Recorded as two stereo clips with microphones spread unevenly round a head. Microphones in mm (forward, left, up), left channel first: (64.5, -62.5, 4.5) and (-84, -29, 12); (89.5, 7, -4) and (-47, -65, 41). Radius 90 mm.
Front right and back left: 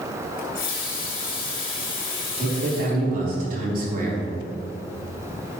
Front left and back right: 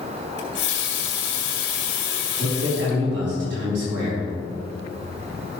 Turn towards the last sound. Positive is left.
turn(degrees=-165)